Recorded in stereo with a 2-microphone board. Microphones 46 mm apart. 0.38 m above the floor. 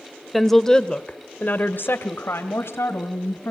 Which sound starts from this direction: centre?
A woman speaking, at 0.3 s.